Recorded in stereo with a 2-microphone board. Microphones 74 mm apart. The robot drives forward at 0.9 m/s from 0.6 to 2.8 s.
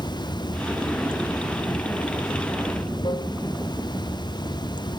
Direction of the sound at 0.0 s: 80° left.